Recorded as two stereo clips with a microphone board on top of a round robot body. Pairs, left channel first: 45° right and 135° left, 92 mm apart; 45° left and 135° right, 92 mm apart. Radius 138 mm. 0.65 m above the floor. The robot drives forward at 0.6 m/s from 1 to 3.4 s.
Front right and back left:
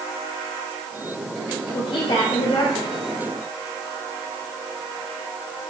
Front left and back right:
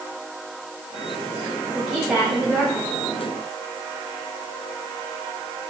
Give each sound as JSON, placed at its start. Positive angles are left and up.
{"t": 1.7, "sound": "a woman speaking", "azimuth_deg": -50, "distance_m": 3.5}